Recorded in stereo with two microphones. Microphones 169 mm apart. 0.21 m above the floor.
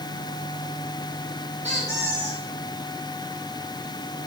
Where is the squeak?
40° right (ahead or behind), 6 m.